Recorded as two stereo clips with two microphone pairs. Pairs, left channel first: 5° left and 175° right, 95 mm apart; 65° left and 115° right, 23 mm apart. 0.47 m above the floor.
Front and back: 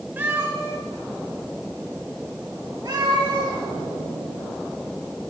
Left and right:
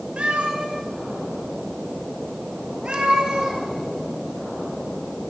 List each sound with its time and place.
0.2 s a cat meowing: 110° right, 2 m; by 3.6 s 140° right, 3.5 m